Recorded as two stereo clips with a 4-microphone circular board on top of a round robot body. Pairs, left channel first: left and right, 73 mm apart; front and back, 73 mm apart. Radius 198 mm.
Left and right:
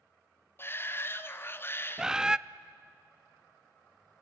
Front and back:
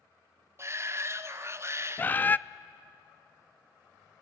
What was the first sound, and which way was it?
A shout, 140° left.